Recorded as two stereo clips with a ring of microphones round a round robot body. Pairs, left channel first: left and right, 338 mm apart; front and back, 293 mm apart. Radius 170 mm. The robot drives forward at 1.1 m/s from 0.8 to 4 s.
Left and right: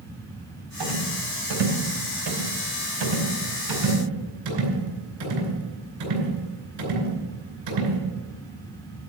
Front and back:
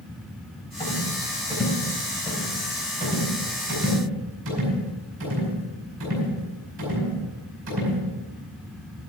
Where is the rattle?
75° right, 4 m; by 8.0 s 125° right, 4.5 m.